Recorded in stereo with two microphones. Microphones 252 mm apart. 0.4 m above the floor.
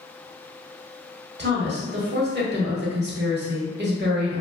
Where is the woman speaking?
45° right (ahead or behind), 1.0 m.